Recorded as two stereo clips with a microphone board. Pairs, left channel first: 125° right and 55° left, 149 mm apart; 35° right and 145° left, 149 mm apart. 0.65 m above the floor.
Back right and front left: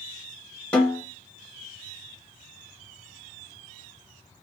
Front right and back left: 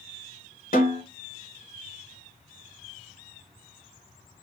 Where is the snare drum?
45° right, 1.1 m.